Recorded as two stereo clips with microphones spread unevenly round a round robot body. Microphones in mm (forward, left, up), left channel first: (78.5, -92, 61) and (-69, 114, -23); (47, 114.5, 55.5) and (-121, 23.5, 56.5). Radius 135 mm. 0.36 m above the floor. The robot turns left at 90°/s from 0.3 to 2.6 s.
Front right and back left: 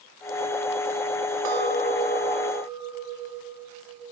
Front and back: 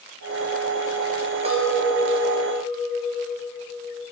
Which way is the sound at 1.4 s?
150° left.